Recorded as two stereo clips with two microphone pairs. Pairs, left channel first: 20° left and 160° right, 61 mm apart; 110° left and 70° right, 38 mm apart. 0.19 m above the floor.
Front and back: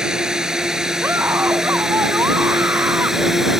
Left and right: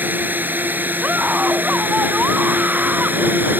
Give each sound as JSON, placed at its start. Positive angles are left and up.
{"t": 0.0, "sound": "a drone", "azimuth_deg": -85}
{"t": 1.0, "sound": "a scream", "azimuth_deg": -115}